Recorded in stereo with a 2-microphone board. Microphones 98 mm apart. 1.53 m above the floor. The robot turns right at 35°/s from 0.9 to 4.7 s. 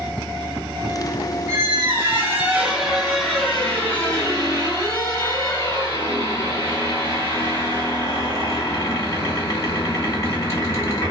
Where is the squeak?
55° right, 1.2 m; by 11.1 s 55° left, 1.2 m.